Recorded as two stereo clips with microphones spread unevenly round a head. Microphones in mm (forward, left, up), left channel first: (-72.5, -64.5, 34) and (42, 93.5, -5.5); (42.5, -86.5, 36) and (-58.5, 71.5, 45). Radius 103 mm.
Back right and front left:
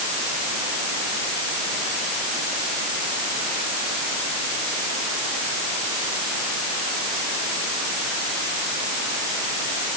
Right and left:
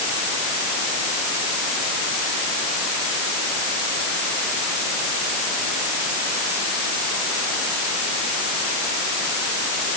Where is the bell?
I don't hear a bell.